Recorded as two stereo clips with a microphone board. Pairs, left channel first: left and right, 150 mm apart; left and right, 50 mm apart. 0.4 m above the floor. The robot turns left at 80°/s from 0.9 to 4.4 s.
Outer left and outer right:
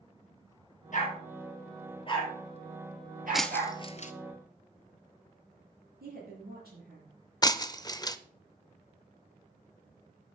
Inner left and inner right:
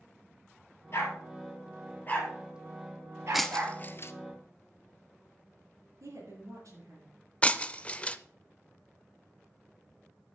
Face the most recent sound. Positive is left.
turn(degrees=25)  # may be behind; listen again after turning